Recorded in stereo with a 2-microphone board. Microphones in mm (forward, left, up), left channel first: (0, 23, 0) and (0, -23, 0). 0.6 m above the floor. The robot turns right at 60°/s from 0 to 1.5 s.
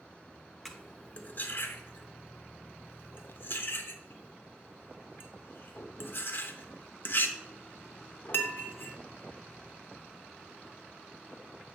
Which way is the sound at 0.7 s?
Centre (ahead or behind).